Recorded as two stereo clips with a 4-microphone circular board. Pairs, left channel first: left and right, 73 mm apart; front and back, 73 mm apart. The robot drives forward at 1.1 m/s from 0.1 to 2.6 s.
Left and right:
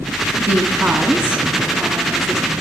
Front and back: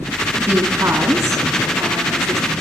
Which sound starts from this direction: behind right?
A woman speaking, at 0.4 s.